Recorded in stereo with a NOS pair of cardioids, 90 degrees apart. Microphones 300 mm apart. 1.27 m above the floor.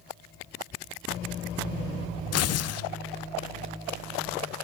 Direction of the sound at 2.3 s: 55° left.